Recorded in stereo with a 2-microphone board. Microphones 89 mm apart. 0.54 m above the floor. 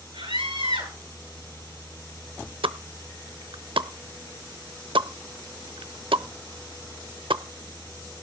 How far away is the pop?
About 0.7 m.